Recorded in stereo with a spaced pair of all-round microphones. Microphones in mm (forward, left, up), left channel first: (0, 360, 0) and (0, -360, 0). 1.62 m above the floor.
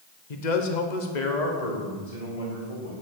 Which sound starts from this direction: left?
A man speaking, at 0.3 s.